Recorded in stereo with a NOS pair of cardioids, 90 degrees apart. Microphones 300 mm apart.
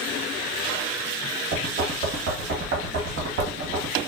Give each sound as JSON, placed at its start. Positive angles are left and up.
{"t": 1.5, "sound": "knocking", "azimuth_deg": -55, "distance_m": 1.1}